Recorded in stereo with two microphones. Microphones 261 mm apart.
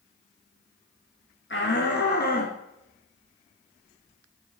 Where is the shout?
45° left (ahead or behind), 1.6 m; by 2.5 s 35° left (ahead or behind), 1.6 m.